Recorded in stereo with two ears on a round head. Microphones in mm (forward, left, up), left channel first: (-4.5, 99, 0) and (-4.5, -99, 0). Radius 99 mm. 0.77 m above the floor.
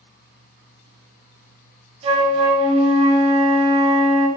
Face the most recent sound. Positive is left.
turn(degrees=-30)  # may be behind; listen again after turning